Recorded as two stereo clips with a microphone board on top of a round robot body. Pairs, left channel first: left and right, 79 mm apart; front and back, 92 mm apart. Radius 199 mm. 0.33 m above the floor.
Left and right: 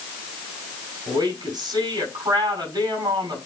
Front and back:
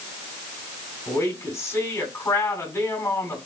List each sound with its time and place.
1.1 s a woman speaking: 60° right, 5 m